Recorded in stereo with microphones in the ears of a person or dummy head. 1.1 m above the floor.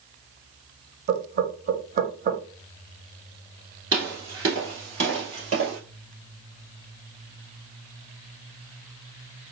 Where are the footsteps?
20° right (ahead or behind), 1.2 m; by 5.8 s 45° right (ahead or behind), 2 m.